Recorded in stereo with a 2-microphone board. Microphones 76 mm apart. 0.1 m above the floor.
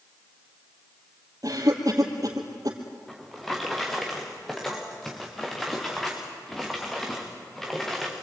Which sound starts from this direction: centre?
A drawer, at 3.1 s.